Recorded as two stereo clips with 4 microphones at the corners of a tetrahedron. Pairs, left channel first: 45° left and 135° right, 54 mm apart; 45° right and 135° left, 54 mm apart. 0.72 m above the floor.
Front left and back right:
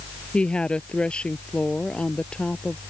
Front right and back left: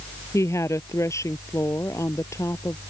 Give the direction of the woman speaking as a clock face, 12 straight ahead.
1 o'clock.